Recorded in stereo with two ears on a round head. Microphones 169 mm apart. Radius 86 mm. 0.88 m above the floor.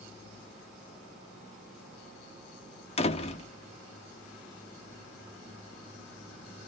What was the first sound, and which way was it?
A door slam, 30° left (ahead or behind).